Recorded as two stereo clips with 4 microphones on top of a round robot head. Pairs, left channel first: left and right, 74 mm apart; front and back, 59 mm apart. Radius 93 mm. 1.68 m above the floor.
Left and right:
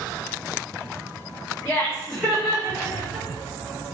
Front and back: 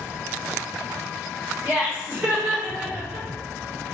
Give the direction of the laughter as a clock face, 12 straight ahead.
8 o'clock.